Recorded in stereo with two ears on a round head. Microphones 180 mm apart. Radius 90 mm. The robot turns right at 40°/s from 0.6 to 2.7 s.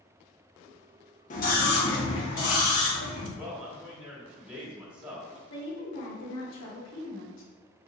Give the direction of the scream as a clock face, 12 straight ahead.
11 o'clock.